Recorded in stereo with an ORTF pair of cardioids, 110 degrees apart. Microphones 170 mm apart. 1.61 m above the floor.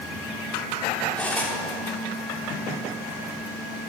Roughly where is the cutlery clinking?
Ahead.